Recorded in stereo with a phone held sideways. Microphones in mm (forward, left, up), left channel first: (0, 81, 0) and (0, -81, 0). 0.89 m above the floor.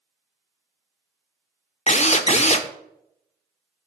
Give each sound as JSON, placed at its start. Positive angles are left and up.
{"t": 1.9, "sound": "a drill", "side_deg": 45, "distance_m": 0.7}